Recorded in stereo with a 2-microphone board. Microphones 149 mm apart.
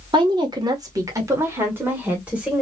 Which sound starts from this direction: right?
A woman speaking, at 0.1 s.